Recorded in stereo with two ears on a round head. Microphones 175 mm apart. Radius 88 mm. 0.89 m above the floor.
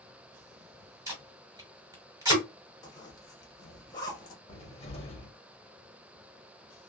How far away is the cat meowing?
No cat meowing in this recording.